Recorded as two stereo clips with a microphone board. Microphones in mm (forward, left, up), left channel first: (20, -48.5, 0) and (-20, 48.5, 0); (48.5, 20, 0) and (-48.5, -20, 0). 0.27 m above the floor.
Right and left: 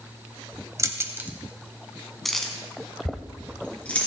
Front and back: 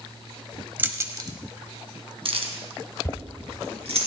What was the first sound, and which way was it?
Keys jangling, 145° left.